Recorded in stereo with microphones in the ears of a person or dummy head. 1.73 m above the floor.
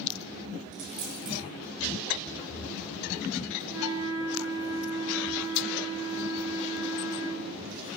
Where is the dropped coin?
65° right (ahead or behind), 3 m.